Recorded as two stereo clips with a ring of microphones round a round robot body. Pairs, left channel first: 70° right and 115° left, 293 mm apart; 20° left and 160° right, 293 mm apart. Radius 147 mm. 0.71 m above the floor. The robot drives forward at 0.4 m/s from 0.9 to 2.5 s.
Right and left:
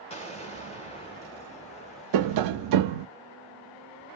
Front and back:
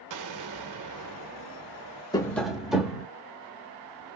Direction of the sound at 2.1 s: 100° left.